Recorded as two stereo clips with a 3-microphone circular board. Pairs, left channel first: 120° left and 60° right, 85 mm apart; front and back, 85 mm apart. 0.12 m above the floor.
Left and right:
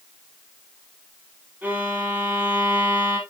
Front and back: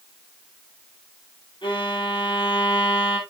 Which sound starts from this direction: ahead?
A violin, at 1.6 s.